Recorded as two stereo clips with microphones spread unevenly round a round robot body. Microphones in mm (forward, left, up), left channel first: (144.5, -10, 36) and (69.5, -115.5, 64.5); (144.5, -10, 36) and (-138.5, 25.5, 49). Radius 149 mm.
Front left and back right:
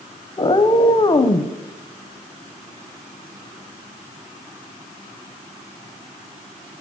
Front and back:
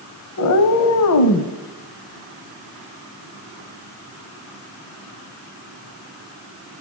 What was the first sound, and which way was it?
A cat meowing, 10° left.